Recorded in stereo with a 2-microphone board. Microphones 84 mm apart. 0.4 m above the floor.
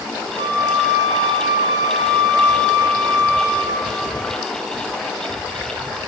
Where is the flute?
60° right (ahead or behind), 1.3 m.